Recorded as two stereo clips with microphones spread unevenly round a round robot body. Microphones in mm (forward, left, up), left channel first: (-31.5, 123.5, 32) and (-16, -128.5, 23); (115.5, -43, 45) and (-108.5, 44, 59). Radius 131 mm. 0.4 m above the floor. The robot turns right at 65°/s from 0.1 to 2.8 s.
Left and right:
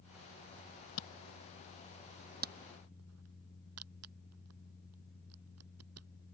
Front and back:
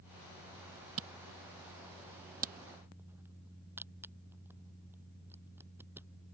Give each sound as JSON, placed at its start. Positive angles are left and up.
{"t": 1.0, "sound": "a camera shutter", "azimuth_deg": 120}